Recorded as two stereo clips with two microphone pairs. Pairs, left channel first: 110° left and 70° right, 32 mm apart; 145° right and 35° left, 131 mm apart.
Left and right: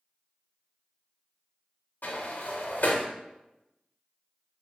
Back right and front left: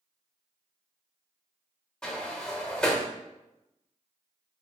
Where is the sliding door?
130° left, 0.6 m.